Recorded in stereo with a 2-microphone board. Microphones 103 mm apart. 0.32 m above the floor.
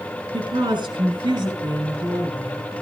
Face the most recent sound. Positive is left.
turn(degrees=-40)  # may be behind; listen again after turning